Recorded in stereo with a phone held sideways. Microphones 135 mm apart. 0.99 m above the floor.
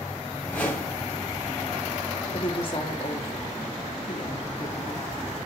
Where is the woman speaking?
40° left (ahead or behind), 2.5 m.